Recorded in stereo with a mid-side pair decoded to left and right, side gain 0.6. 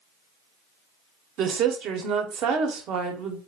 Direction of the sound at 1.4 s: 60° right.